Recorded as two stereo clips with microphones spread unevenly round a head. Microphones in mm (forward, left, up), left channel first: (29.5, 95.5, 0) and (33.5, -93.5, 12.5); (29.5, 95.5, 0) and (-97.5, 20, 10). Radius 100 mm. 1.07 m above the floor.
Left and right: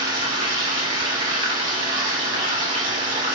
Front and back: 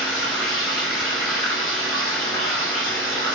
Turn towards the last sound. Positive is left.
turn(degrees=-40)